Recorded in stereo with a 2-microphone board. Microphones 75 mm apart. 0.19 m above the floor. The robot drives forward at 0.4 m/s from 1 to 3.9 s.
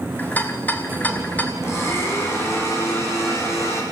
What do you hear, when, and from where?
0.2 s a rattle: 20° left (ahead or behind), 2 m
1.6 s a blender: 35° left (ahead or behind), 7.5 m; by 3.8 s 40° left (ahead or behind), 7 m